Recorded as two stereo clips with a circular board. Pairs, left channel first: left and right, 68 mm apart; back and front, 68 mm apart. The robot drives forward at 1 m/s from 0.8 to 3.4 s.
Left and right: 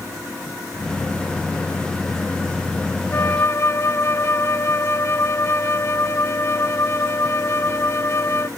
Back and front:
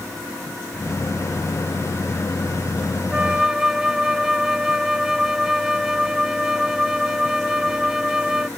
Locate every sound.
3.1 s a flute: 65° left; by 8.5 s 80° left